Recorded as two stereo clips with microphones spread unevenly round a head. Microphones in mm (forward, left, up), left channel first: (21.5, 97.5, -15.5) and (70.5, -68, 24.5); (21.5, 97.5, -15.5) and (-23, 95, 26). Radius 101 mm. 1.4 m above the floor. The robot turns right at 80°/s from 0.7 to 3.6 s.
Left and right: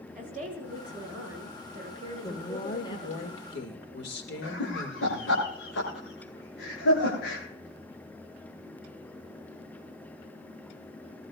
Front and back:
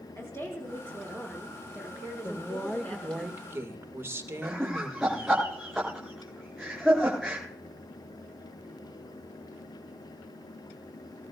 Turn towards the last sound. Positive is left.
turn(degrees=105)